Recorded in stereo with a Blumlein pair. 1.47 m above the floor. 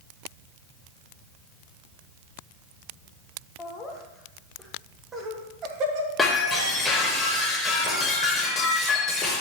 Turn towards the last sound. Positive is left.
turn(degrees=15)